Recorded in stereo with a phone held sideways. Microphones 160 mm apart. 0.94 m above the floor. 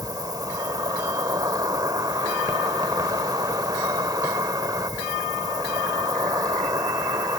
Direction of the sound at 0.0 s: 25° right (ahead or behind).